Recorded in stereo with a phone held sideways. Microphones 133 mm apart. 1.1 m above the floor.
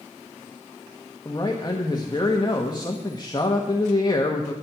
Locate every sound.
1.2 s a man speaking: 30° left (ahead or behind), 1.2 m